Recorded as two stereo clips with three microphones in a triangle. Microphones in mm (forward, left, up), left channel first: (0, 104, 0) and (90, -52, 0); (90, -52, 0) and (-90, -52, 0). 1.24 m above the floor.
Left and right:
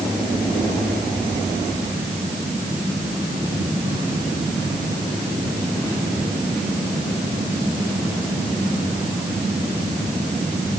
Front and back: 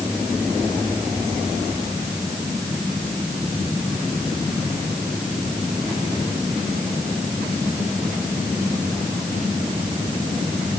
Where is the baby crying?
I don't hear a baby crying.